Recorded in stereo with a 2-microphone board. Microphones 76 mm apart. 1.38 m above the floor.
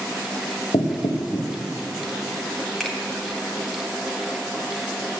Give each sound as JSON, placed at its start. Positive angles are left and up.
{"t": 0.7, "sound": "knocking", "side_deg": 80, "distance_m": 1.4}
{"t": 2.8, "sound": "a finger snap", "side_deg": 5, "distance_m": 3.0}